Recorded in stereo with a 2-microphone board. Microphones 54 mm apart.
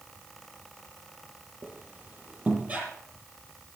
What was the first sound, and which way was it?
A squeak, 35° right (ahead or behind).